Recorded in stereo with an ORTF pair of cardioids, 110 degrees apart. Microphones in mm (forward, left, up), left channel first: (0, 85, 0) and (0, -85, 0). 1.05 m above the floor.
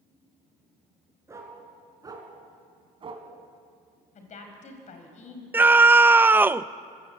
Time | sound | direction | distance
1.3 | a dog barking | 20° right | 5 m
4.2 | a woman speaking | 50° left | 5.5 m
5.5 | a scream | 15° right | 0.7 m